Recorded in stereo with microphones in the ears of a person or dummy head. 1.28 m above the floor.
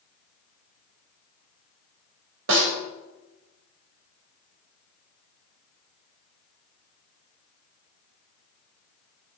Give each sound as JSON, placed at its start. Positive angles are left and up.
{"t": 2.5, "sound": "a snare drum", "side_deg": -80, "distance_m": 4.0}